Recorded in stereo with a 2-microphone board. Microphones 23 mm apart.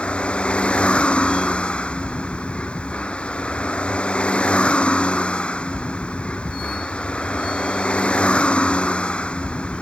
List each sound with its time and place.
0.0 s a vehicle: 60° left (ahead or behind)